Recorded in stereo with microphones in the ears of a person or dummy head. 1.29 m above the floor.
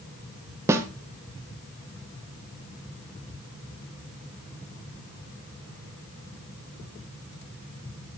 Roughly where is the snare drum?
Centre.